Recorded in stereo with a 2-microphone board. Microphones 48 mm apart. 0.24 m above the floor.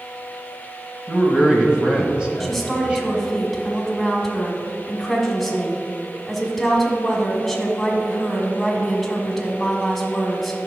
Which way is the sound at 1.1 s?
20° right (ahead or behind).